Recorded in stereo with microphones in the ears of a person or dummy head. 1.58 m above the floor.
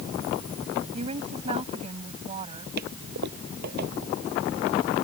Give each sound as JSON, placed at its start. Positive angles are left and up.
{"t": 0.9, "sound": "a woman speaking", "side_deg": -35}
{"t": 2.8, "sound": "a toilet flushing", "side_deg": -60}